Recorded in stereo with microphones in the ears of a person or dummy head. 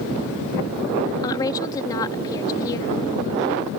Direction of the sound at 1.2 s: 25° left (ahead or behind).